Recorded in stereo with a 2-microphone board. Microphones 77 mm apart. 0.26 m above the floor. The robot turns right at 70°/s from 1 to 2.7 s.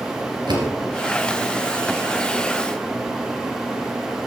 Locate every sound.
0.5 s a door slam: 75° right (ahead or behind), 3 m